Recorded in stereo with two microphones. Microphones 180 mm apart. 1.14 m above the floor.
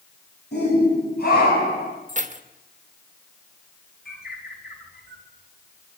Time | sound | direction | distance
0.5 | a shout | 65° left (ahead or behind) | 8.5 m
2.1 | keys jangling | 45° right (ahead or behind) | 1.3 m
4.0 | a bird | 60° left (ahead or behind) | 3.5 m